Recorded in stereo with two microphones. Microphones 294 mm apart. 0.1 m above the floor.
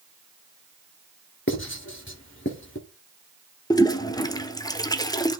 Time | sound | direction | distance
1.5 | writing | 40° left (ahead or behind) | 1.5 m
3.7 | a toilet flushing | 15° left (ahead or behind) | 0.6 m